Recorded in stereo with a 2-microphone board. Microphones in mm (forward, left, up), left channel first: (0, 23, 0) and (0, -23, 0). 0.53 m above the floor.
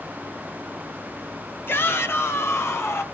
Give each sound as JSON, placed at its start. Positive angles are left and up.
{"t": 1.7, "sound": "a shout", "side_deg": 55, "distance_m": 1.5}